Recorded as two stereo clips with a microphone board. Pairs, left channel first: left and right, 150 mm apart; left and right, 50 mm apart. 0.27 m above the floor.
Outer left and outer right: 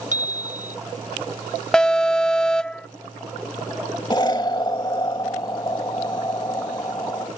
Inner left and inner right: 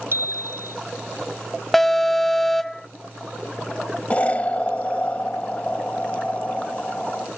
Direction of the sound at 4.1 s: 30° left (ahead or behind).